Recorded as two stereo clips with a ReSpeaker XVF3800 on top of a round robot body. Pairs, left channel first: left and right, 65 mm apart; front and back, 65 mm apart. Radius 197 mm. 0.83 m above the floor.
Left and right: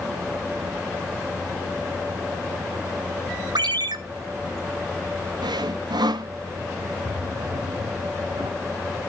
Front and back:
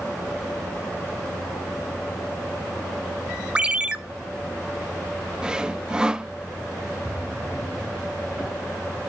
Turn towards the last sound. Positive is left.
turn(degrees=-105)